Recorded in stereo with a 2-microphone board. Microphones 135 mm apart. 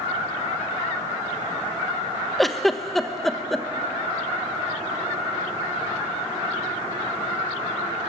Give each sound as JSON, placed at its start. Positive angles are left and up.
{"t": 2.4, "sound": "a giggle", "side_deg": 0, "distance_m": 0.9}